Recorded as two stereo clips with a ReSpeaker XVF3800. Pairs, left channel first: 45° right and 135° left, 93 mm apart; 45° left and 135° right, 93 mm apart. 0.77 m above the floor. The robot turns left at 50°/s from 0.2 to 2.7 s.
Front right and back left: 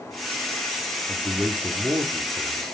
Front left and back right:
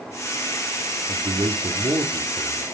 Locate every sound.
1.1 s a man speaking: 125° right, 1.6 m; by 2.6 s 155° left, 1.6 m